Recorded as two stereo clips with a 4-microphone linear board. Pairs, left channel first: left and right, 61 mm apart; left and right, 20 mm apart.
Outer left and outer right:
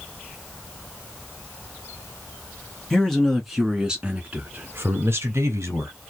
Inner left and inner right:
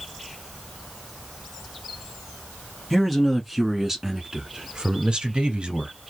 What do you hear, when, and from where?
2.9 s a man speaking: 10° left (ahead or behind), 1.4 m; by 5.9 s 50° right (ahead or behind), 1.6 m